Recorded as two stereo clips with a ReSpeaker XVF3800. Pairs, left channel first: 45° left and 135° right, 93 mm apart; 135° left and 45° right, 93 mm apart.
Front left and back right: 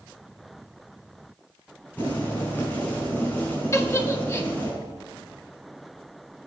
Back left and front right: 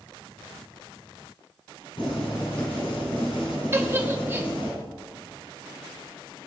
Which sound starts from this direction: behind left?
Boiling, at 2.0 s.